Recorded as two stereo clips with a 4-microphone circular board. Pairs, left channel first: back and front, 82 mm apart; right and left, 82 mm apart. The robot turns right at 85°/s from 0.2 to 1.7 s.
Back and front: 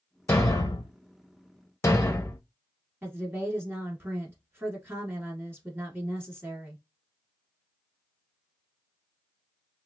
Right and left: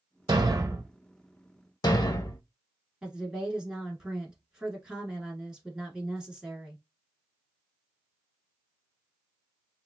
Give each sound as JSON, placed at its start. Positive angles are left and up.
{"t": 0.3, "sound": "a thud", "azimuth_deg": 115, "distance_m": 0.6}
{"t": 3.0, "sound": "a woman speaking", "azimuth_deg": 20, "distance_m": 1.2}